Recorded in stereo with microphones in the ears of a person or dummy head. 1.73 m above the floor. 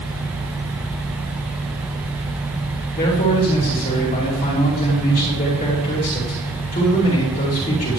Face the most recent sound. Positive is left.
turn(degrees=45)  # may be behind; listen again after turning